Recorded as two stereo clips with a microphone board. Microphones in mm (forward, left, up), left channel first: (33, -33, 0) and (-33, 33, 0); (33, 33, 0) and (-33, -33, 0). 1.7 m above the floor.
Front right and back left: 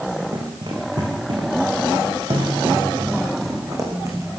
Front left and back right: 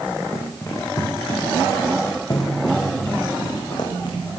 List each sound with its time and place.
0.3 s running footsteps: 105° left, 7 m; by 4.2 s 80° left, 7 m